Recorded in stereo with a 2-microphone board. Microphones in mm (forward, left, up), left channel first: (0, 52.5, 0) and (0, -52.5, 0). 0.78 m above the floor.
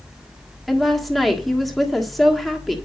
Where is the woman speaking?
Centre (ahead or behind), 1.6 m.